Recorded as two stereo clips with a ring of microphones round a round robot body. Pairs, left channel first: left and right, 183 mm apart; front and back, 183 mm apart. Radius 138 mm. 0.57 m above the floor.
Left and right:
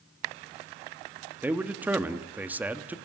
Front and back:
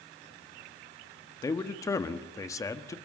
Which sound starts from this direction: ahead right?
A man speaking, at 1.4 s.